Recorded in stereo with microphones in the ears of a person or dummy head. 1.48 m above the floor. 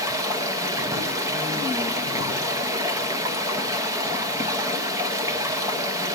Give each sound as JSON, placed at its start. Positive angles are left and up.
{"t": 0.0, "sound": "running water", "side_deg": -20, "distance_m": 0.9}